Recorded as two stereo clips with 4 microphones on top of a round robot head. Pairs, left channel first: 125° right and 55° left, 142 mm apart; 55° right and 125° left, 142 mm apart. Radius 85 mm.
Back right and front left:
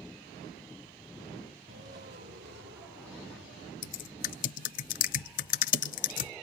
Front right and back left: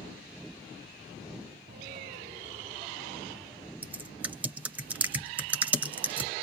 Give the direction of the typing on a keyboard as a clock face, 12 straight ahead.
5 o'clock.